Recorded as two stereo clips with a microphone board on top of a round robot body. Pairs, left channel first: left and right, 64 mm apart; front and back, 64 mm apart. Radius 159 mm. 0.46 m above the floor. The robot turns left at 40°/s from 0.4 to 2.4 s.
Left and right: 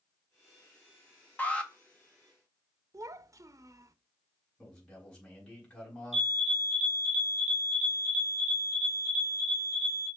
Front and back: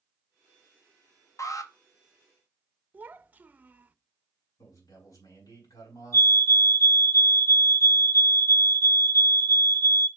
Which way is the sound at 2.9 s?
115° right.